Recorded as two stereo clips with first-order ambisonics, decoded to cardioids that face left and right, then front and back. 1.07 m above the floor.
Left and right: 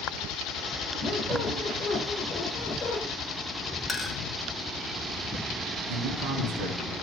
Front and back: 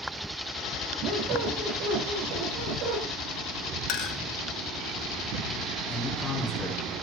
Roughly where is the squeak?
Behind.